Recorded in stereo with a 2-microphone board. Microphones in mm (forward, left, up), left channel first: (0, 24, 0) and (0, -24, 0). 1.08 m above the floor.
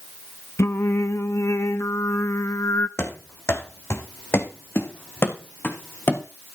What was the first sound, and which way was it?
Singing, 75° left (ahead or behind).